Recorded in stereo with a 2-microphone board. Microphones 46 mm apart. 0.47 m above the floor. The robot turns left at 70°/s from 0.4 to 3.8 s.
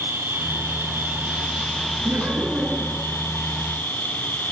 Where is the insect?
75° right, 5.5 m; by 4.5 s 50° left, 5.5 m.